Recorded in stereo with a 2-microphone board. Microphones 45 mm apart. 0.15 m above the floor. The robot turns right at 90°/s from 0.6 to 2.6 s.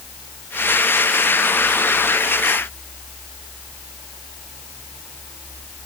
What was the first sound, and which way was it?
Only background noise.